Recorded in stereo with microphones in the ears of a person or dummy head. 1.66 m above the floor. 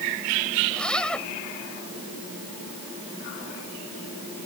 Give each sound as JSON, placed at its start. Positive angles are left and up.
{"t": 0.7, "sound": "a zipper", "side_deg": 5}